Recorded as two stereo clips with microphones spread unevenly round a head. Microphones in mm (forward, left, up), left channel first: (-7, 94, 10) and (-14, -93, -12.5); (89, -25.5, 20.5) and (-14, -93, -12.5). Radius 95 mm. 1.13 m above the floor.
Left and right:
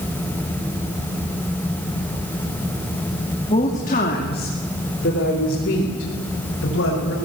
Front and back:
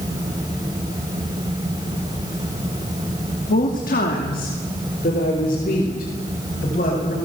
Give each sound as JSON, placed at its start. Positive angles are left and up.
{"t": 3.5, "sound": "a woman speaking", "azimuth_deg": 25, "distance_m": 2.5}